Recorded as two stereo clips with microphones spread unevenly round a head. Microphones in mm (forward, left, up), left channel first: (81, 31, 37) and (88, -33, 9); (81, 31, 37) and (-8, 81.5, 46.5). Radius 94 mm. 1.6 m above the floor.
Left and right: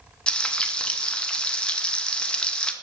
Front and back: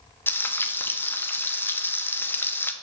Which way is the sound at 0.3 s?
40° left.